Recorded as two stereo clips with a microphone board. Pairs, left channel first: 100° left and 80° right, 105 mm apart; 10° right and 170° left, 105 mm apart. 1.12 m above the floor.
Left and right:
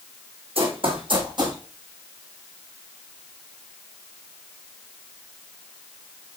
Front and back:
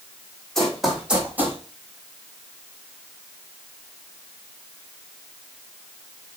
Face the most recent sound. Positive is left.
turn(degrees=-125)